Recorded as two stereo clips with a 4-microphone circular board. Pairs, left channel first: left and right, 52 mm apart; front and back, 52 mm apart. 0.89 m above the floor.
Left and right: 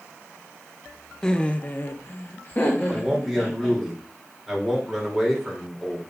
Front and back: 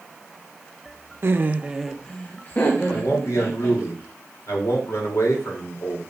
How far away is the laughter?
About 0.8 m.